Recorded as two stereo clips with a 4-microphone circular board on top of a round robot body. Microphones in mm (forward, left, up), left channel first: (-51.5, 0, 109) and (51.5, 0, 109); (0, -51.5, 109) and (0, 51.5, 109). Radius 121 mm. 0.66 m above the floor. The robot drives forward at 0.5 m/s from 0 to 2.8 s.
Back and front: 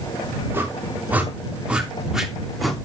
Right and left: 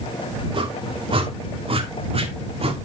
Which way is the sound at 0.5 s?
65° left.